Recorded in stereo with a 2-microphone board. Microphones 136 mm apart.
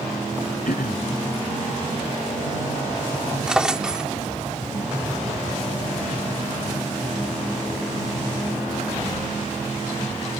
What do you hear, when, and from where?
0.7 s throat clearing: 85° left
3.5 s a drawer: 5° right (ahead or behind)